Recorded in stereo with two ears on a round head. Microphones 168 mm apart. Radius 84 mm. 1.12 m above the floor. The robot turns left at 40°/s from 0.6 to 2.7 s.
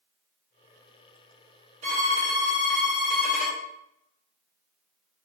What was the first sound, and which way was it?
A violin, 140° right.